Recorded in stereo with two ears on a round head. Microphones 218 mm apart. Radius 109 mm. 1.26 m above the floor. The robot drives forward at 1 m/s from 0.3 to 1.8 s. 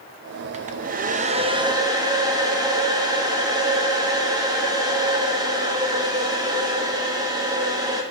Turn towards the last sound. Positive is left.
turn(degrees=-15)  # may be behind; listen again after turning